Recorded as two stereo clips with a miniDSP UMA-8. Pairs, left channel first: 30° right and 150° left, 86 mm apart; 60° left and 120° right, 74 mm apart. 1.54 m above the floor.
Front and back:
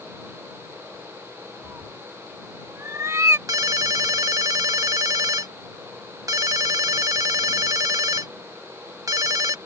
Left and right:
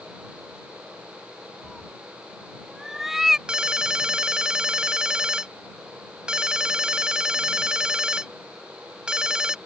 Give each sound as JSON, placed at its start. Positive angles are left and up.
{"t": 1.6, "sound": "a cat meowing", "azimuth_deg": 155}
{"t": 3.5, "sound": "a ringtone", "azimuth_deg": 165}